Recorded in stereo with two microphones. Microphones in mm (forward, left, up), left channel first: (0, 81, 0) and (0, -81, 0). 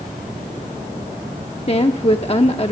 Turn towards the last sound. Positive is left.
turn(degrees=40)  # may be behind; listen again after turning